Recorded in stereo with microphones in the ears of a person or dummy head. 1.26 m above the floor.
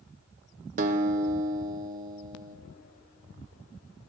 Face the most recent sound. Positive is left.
turn(degrees=-40)  # may be behind; listen again after turning